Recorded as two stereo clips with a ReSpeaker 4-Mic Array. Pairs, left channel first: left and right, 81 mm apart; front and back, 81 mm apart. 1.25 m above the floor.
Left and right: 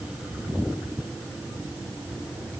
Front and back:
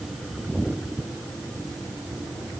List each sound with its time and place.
Only background noise.